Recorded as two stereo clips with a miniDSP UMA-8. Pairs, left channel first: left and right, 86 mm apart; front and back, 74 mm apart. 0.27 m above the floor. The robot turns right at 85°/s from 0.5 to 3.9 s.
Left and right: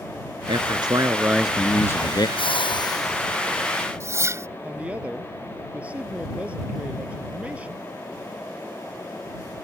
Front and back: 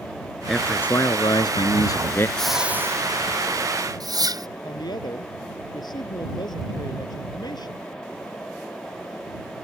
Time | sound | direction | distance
0.5 | a man speaking | 90° right | ?
2.4 | a whoosh | 80° left | ?
4.6 | a woman speaking | 15° right | ?